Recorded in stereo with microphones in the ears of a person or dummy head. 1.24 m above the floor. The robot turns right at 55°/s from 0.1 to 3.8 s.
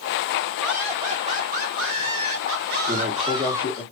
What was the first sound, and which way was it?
Laughter, straight behind.